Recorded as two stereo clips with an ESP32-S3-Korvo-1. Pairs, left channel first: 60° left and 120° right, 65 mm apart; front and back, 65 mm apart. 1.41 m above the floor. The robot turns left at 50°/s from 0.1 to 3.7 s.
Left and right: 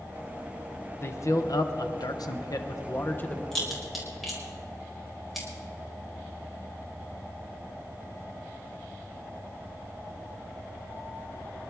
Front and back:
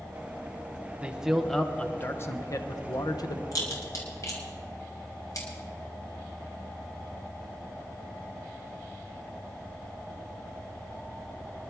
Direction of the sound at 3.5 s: 25° right.